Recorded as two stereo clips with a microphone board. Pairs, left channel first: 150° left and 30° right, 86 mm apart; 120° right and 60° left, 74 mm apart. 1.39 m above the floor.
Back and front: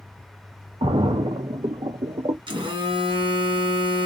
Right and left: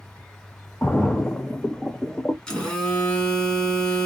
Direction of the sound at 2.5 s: 40° right.